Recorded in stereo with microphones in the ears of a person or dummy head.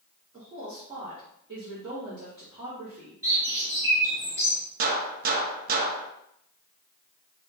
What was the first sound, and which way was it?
A woman speaking, 25° right (ahead or behind).